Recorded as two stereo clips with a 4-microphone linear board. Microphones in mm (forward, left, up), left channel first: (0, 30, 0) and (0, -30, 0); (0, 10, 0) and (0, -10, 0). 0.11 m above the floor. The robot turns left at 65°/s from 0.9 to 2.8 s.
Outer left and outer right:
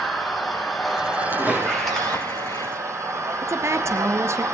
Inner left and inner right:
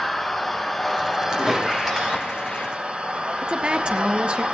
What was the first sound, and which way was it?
An engine running, straight ahead.